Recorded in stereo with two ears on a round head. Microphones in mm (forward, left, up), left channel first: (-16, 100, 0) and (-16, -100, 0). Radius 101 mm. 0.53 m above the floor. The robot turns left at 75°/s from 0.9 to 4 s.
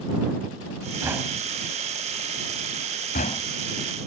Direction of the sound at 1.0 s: 15° right (ahead or behind).